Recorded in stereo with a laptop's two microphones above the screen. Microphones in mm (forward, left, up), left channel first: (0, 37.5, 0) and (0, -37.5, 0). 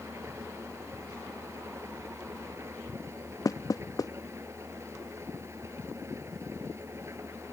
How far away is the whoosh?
I don't hear a whoosh.